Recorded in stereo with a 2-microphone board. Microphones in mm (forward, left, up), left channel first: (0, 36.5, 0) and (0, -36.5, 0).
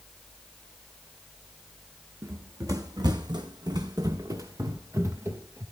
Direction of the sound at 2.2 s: 40° right (ahead or behind).